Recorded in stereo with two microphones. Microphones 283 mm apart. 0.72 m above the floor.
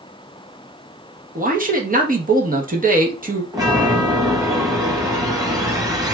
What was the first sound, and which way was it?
A man speaking, 30° right (ahead or behind).